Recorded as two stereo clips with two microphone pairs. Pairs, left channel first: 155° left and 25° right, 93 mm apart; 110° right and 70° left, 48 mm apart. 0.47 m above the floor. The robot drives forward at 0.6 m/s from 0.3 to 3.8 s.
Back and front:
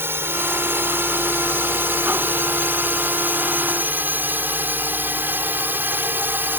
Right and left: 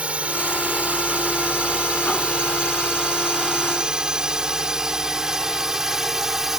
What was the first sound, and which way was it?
A drone, 25° left.